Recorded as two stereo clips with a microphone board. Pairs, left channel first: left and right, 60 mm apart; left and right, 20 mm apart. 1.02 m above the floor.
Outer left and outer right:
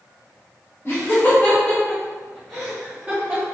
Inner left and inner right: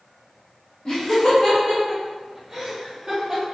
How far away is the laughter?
About 1.3 m.